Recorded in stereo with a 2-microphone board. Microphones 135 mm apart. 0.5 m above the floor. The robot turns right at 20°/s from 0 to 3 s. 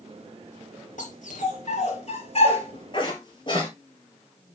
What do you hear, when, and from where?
1.0 s a dog barking: 75° left (ahead or behind), 3 m; by 3.7 s 35° left (ahead or behind), 3 m